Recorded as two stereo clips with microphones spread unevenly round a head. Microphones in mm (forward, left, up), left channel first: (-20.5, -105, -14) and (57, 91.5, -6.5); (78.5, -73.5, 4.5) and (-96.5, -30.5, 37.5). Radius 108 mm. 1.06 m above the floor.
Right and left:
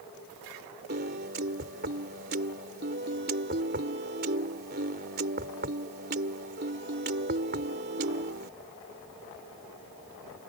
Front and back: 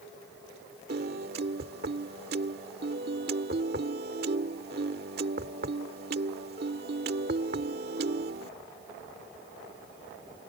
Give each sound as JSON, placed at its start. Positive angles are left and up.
{"t": 0.9, "sound": "a piano", "azimuth_deg": 115}